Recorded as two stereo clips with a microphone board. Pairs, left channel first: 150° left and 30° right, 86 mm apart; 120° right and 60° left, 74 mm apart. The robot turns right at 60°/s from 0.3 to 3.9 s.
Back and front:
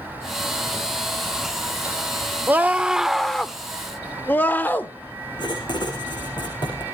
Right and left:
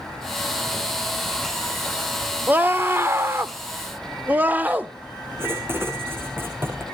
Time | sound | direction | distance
2.5 | a scream | 15° left | 1.0 m
5.4 | writing | 120° left | 6 m